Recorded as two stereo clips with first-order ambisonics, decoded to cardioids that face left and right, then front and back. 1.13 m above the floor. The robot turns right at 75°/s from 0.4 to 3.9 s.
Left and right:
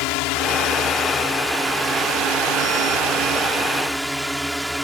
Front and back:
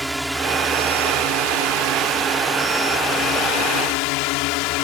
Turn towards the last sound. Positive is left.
turn(degrees=0)